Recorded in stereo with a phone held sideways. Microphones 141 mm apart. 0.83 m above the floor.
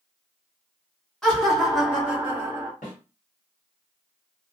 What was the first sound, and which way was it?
Laughter, 5° left (ahead or behind).